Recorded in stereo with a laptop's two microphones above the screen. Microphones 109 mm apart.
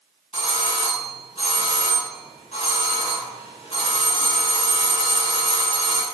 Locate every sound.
0.3 s a doorbell: 70° left (ahead or behind), 3 m